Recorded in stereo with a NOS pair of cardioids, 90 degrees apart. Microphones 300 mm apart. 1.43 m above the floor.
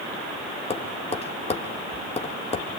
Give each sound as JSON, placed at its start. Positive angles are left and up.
{"t": 0.7, "sound": "tapping", "azimuth_deg": 20, "distance_m": 3.0}